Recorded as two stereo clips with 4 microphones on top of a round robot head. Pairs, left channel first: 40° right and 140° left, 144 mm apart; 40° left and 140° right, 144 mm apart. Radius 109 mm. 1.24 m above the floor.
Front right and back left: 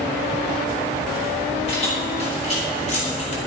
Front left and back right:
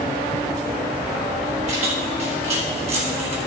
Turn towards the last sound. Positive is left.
turn(degrees=-85)